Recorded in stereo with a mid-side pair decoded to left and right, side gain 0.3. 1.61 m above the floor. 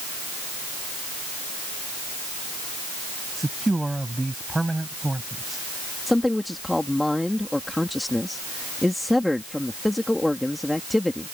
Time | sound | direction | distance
3.4 | a man speaking | 15° right | ?
6.1 | a man speaking | 15° left | ?